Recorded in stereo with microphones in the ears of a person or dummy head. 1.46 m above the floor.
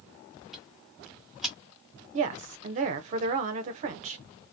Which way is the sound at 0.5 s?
5° left (ahead or behind).